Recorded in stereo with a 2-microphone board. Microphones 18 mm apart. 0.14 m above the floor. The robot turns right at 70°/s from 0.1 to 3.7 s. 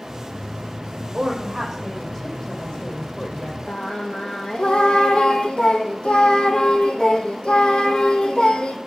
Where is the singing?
65° left (ahead or behind), 1.1 m.